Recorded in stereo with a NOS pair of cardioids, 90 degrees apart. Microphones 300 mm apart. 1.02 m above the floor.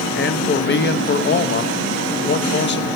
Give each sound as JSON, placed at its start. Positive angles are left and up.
{"t": 0.1, "sound": "a man speaking", "azimuth_deg": 40, "distance_m": 0.8}